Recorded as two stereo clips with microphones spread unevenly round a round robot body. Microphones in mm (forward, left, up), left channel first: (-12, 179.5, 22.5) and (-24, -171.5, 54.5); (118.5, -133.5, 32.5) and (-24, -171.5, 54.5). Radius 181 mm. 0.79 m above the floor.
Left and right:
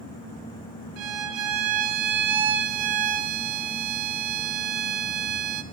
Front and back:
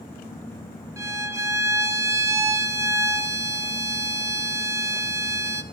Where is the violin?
90° right, 1.4 m.